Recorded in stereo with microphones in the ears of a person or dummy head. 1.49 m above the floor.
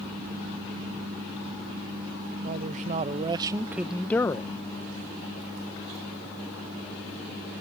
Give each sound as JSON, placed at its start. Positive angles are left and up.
{"t": 2.4, "sound": "a man speaking", "side_deg": -50}